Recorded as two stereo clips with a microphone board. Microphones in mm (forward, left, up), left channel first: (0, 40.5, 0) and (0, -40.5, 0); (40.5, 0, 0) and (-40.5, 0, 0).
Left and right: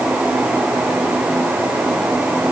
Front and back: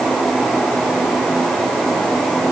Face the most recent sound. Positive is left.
No sound to turn to.